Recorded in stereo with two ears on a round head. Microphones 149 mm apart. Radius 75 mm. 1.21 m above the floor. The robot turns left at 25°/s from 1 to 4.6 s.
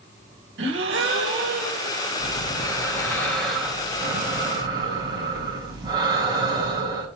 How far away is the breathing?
About 4.5 m.